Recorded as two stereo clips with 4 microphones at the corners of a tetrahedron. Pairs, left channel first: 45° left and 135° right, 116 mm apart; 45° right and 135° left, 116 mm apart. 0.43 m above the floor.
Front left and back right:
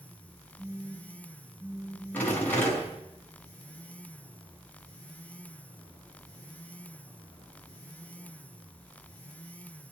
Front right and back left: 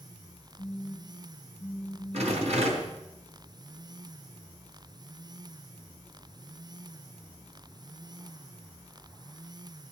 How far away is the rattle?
About 4 m.